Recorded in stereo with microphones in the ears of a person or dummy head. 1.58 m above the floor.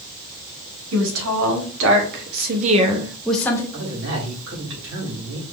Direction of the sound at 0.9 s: 85° right.